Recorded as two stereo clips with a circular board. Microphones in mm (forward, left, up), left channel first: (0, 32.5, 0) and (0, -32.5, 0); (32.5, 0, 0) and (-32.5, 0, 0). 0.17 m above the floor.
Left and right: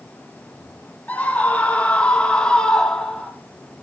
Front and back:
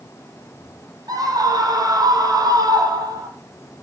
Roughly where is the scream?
Behind left.